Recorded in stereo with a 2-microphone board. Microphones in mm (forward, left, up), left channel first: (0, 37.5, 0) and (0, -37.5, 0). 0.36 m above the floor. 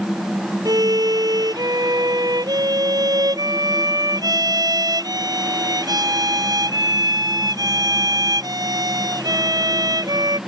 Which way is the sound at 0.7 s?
65° right (ahead or behind).